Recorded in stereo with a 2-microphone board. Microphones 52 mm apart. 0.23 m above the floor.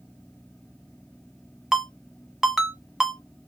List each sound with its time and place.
1.7 s a ringtone: 10° right (ahead or behind), 1.0 m